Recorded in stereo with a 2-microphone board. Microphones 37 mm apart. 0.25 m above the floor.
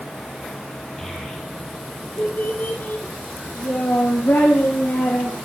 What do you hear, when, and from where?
1.0 s a child speaking: 10° left (ahead or behind), 4 m; by 5.4 s 85° left, 7 m